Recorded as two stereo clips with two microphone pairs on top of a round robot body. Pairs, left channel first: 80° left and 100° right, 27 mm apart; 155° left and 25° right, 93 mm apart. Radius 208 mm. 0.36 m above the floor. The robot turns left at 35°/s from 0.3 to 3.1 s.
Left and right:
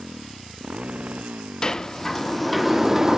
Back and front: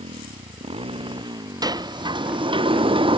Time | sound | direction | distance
0.0 | a motorcycle | 35° right | ?
1.6 | a sliding door | 15° left | ?